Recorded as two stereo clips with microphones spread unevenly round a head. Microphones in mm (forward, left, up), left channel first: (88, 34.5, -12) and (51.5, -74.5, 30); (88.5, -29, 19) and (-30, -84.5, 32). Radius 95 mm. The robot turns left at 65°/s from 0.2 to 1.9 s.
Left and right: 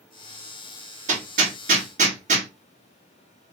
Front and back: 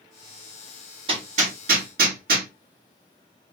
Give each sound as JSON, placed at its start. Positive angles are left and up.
{"t": 1.1, "sound": "hammering", "azimuth_deg": -105, "distance_m": 1.7}